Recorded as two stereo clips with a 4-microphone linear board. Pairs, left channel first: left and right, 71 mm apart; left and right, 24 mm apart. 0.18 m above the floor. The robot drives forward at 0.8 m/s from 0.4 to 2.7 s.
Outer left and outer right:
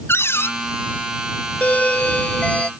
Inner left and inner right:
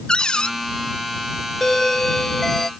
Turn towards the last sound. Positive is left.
turn(degrees=15)  # may be behind; listen again after turning